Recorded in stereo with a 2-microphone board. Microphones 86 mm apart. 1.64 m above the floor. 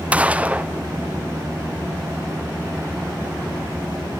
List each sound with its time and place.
0.1 s a gunshot: 15° right (ahead or behind), 0.7 m